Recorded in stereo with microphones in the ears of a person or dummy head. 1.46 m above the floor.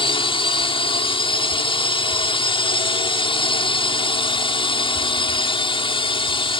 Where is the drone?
25° left (ahead or behind).